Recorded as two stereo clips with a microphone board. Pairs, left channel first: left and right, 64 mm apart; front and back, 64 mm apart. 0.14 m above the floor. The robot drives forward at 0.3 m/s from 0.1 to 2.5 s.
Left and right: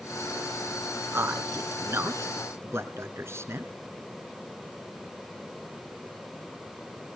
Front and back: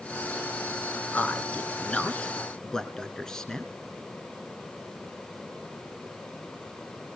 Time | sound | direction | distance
1.1 | a man speaking | 55° right | 1.8 m